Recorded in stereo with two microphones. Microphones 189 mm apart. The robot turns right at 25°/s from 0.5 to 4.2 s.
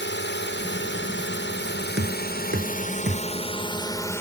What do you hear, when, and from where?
0.0 s a drone: 70° left (ahead or behind); by 4.2 s 15° left (ahead or behind)
2.0 s knocking: 85° right; by 3.3 s 50° right (ahead or behind)